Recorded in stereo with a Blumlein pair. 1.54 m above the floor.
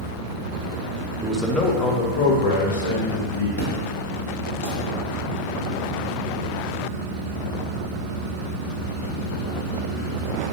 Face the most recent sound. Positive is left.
turn(degrees=55)